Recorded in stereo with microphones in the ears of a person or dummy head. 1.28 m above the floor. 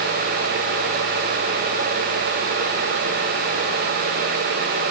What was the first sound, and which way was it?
Only background noise.